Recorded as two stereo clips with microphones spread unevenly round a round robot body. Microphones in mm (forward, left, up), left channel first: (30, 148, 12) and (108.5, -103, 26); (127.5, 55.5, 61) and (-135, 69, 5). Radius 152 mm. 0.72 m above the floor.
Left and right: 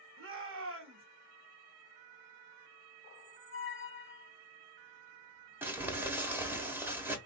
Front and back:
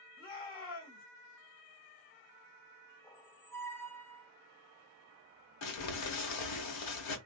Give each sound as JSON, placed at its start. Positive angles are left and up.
{"t": 0.2, "sound": "a shout", "azimuth_deg": -60, "distance_m": 1.6}
{"t": 3.0, "sound": "a squeak", "azimuth_deg": 70, "distance_m": 0.6}
{"t": 5.6, "sound": "crumpling", "azimuth_deg": 10, "distance_m": 1.0}